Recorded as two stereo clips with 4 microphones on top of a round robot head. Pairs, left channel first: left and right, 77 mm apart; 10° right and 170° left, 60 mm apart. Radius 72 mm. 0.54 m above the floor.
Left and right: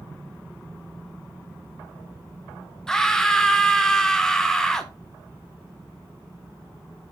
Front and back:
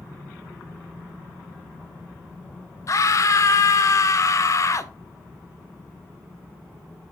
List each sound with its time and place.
2.9 s a scream: 10° left, 1.5 m